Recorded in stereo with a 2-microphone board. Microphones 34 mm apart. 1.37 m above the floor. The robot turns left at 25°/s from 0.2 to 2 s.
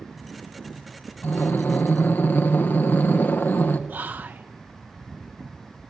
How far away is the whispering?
About 0.6 m.